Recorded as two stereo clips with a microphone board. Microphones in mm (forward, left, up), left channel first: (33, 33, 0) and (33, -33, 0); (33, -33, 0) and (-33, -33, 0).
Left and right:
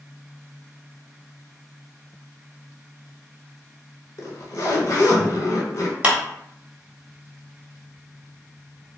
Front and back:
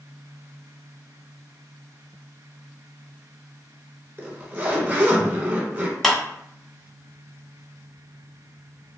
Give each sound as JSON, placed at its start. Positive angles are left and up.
{"t": 4.2, "sound": "a zipper", "azimuth_deg": 125, "distance_m": 1.1}
{"t": 6.0, "sound": "a clap", "azimuth_deg": -75, "distance_m": 1.1}